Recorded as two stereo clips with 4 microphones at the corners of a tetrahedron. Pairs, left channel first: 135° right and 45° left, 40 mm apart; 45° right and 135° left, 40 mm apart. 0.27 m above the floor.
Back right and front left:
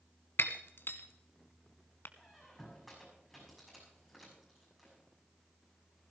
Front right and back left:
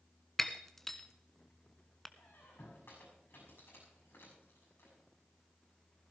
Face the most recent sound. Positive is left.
turn(degrees=-45)